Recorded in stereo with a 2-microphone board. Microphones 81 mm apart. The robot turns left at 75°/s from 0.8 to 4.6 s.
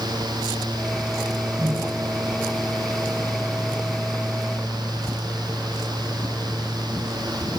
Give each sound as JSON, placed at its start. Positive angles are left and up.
{"t": 1.6, "sound": "a microwave", "azimuth_deg": -15, "distance_m": 8.5}